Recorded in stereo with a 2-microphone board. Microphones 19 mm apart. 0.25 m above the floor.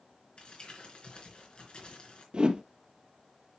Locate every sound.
0.4 s crumpling: 55° left (ahead or behind), 3.5 m
2.3 s a whoosh: 50° right (ahead or behind), 0.9 m